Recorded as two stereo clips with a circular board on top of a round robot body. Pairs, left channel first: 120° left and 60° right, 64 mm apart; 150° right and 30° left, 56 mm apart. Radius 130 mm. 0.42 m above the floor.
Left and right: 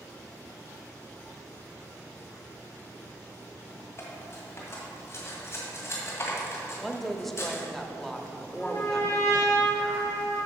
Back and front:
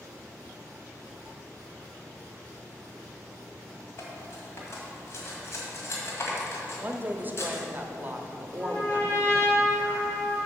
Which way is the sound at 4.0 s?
170° left.